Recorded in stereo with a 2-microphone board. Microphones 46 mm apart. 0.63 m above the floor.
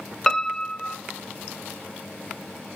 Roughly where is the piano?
Centre.